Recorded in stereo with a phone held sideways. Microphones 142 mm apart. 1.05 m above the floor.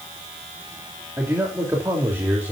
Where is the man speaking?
15° right (ahead or behind), 3 m.